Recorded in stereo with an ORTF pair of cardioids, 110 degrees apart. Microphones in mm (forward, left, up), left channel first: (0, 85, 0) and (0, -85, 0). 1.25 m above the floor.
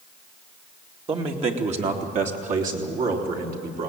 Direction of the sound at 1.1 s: 35° right.